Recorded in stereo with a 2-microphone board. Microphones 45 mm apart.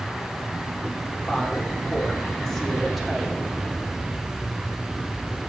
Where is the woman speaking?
25° left (ahead or behind), 2 m; by 3.4 s 5° right (ahead or behind), 1.7 m.